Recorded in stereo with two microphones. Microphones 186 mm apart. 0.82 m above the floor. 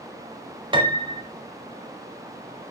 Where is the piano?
25° right (ahead or behind), 1.2 m.